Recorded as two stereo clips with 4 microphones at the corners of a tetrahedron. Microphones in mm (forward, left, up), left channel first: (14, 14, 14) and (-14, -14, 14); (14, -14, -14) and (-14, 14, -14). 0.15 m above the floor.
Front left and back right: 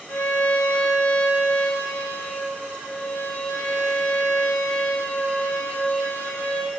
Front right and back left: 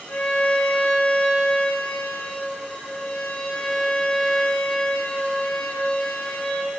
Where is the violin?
15° left, 5.5 m.